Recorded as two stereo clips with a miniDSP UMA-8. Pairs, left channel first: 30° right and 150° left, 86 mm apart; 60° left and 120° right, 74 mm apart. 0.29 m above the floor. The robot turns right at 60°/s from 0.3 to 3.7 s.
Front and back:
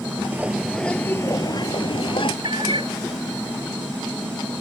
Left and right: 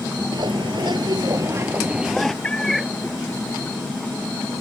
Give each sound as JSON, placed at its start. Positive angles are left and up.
{"t": 0.3, "sound": "a bird", "azimuth_deg": -140}
{"t": 2.4, "sound": "a cat meowing", "azimuth_deg": 130}